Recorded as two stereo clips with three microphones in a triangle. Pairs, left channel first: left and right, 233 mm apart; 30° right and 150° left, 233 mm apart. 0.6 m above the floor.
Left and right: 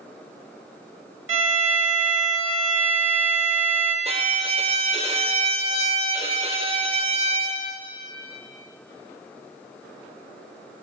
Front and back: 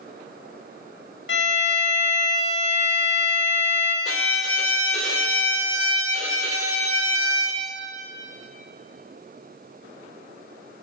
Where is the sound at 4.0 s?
25° right, 0.6 m.